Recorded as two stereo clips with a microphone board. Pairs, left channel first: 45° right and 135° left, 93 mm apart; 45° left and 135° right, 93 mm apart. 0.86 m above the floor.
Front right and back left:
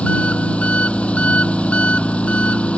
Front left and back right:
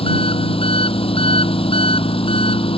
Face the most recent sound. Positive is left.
turn(degrees=30)